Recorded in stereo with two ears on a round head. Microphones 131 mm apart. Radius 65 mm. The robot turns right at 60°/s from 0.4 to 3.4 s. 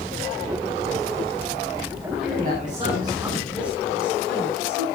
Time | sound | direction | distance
2.2 | a man speaking | 60° right | 9 m